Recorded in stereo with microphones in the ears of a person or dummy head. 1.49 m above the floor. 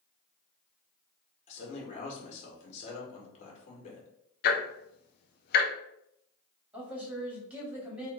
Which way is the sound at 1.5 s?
40° left (ahead or behind).